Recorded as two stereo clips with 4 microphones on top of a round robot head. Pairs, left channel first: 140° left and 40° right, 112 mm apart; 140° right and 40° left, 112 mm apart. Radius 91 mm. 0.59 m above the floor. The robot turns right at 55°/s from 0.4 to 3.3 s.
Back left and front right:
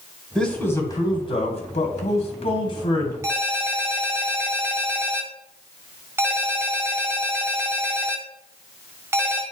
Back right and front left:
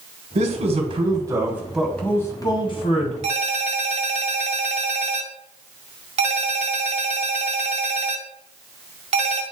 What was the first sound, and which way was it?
A man speaking, 55° left.